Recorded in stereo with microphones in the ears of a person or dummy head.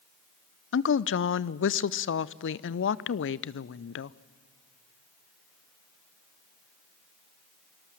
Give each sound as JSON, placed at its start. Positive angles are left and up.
{"t": 0.7, "sound": "a woman speaking", "side_deg": 55, "distance_m": 0.5}